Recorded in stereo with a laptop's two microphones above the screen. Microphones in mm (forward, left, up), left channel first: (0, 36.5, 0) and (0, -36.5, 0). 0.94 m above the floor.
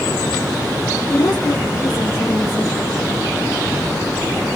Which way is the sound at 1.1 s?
65° left (ahead or behind).